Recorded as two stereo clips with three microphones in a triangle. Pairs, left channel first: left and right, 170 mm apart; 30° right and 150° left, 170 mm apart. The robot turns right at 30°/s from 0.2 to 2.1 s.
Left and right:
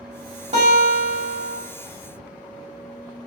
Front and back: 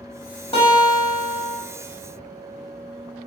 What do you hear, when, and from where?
0.5 s a guitar: 65° right, 1.4 m; by 1.6 s 35° right, 1.4 m